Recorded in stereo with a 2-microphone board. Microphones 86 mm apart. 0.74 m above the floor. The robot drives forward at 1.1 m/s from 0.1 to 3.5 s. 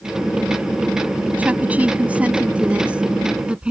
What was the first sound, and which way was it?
A woman speaking, 20° right (ahead or behind).